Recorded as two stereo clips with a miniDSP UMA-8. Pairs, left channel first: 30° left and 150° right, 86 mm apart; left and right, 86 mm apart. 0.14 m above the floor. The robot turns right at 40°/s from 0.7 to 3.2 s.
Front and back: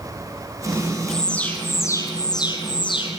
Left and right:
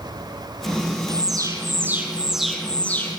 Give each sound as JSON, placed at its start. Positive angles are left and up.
{"t": 1.1, "sound": "an alarm", "azimuth_deg": -55, "distance_m": 4.0}